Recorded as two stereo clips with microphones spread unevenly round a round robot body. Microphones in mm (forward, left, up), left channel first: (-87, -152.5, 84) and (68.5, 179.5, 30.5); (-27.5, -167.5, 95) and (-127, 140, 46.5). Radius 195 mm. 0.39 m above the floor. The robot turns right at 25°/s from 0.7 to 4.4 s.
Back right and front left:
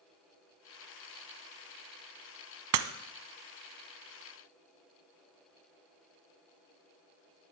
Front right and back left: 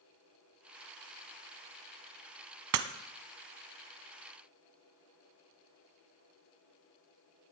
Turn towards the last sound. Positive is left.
turn(degrees=135)